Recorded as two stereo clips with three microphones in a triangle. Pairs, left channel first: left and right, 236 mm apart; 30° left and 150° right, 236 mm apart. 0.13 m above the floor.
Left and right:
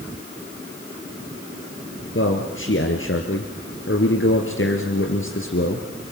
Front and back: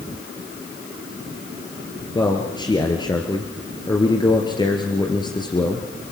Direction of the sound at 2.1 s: 100° left.